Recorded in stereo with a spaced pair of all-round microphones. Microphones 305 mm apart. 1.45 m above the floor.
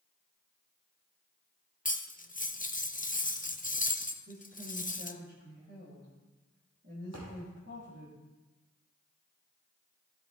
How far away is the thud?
About 4.5 m.